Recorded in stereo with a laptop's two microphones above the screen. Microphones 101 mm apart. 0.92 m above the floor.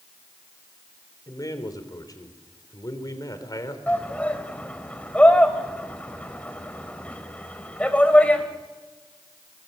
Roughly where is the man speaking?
Left.